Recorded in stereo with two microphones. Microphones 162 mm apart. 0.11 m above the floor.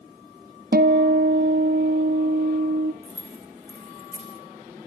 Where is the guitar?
70° right (ahead or behind), 1.5 m.